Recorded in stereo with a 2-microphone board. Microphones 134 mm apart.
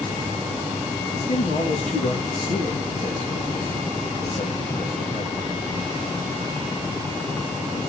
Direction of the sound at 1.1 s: 70° left (ahead or behind).